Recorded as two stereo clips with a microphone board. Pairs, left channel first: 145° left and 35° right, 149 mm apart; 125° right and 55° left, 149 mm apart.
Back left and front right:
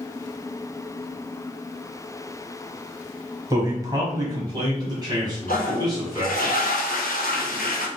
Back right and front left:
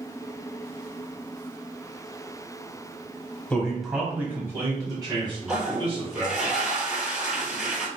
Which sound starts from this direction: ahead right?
A man speaking, at 3.5 s.